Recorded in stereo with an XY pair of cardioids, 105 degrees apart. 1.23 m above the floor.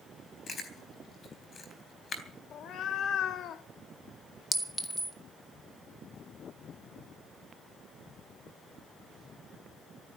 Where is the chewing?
40° left, 3.5 m.